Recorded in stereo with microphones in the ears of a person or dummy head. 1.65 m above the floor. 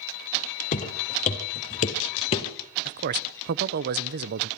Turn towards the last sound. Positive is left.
turn(degrees=-55)  # may be behind; listen again after turning